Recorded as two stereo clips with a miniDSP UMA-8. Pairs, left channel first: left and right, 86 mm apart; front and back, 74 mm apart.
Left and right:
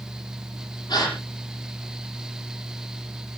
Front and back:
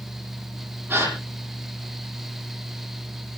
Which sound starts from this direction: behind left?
A gasp, at 0.9 s.